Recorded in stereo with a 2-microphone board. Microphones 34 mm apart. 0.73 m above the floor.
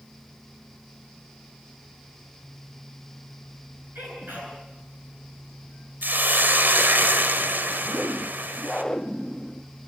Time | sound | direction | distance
4.0 | a sneeze | 80° right | 10 m
6.0 | a hiss | 75° right (ahead or behind) | 1.4 m
7.8 | a whoosh | 15° left (ahead or behind) | 0.8 m